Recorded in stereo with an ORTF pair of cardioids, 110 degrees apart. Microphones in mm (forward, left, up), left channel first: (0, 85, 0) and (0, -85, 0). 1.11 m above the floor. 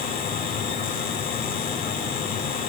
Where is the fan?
70° left, 6 m.